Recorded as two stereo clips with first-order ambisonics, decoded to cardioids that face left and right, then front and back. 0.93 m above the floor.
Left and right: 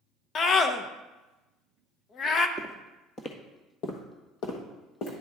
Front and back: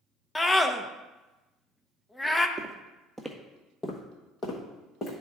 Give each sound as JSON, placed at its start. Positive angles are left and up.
{"t": 0.3, "sound": "a scream", "azimuth_deg": 70, "distance_m": 0.5}
{"t": 2.6, "sound": "footsteps", "azimuth_deg": -165, "distance_m": 0.9}